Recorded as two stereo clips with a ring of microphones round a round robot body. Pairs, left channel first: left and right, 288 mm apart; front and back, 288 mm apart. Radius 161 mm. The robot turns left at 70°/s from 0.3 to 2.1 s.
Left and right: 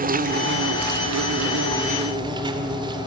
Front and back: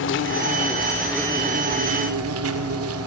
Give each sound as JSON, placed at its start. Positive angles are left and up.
{"t": 0.0, "sound": "an insect", "azimuth_deg": -35, "distance_m": 1.2}